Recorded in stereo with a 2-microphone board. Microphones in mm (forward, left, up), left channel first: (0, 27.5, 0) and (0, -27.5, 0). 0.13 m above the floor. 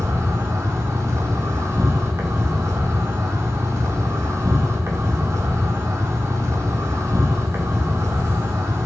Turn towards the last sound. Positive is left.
turn(degrees=-65)  # may be behind; listen again after turning